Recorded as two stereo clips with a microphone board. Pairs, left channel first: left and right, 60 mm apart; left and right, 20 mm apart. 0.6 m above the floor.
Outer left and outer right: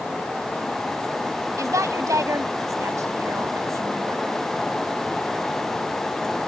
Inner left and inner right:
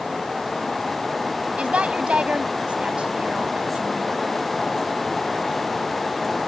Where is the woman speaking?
65° right (ahead or behind).